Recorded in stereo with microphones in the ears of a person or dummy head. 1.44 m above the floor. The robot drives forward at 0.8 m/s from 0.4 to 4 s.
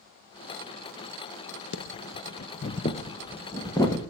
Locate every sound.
1.7 s breathing: 55° left (ahead or behind), 0.5 m; by 4.0 s 15° left (ahead or behind), 1.7 m